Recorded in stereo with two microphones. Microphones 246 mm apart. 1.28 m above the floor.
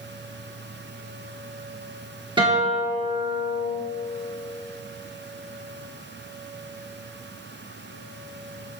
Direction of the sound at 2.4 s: 20° right (ahead or behind).